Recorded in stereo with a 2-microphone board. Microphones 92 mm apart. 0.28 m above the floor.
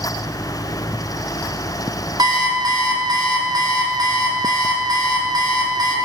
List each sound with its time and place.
2.2 s an alarm clock: 50° right (ahead or behind), 1.4 m